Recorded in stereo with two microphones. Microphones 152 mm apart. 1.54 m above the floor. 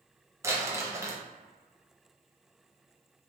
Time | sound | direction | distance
0.4 | crumpling | 20° right (ahead or behind) | 0.7 m